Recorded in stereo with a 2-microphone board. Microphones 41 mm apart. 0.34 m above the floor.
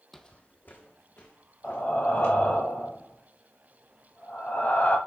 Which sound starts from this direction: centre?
Footsteps, at 0.1 s.